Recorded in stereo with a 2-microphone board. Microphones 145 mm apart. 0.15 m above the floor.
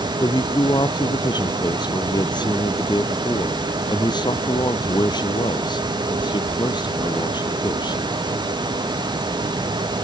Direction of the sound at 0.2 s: 30° left (ahead or behind).